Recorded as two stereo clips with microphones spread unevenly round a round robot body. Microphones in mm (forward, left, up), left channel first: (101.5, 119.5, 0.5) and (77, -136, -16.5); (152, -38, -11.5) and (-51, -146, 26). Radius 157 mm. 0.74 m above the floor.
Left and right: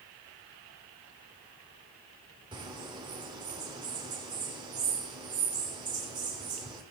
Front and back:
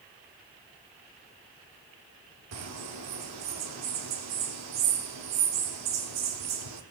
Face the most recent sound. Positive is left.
turn(degrees=-170)